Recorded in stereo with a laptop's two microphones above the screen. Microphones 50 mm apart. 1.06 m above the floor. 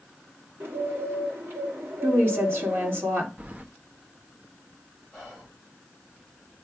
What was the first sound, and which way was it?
A bird, 50° right (ahead or behind).